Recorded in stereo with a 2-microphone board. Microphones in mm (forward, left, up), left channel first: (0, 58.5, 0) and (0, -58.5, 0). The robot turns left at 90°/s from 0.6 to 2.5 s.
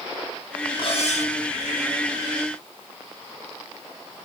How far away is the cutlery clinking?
About 4.5 m.